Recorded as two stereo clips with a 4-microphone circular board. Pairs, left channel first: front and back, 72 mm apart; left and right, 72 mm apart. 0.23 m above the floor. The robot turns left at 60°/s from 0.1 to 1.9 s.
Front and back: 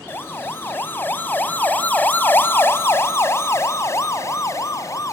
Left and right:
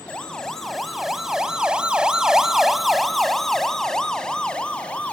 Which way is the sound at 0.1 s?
25° left.